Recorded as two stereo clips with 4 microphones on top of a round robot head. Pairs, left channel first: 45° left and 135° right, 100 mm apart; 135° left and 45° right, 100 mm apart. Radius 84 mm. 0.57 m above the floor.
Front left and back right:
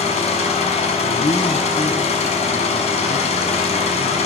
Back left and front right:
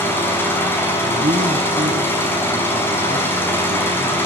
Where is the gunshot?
I don't hear a gunshot.